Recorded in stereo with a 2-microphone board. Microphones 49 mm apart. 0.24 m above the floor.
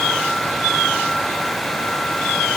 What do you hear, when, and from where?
Only background noise.